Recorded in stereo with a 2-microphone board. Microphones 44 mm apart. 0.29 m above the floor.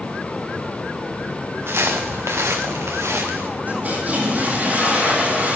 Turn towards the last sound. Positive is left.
turn(degrees=-40)  # may be behind; listen again after turning